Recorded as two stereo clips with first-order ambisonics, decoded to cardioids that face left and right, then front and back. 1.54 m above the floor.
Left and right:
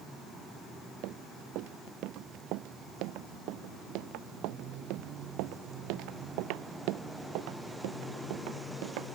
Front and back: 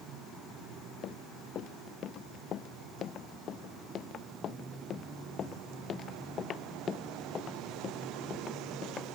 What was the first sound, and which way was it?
Running footsteps, 55° right.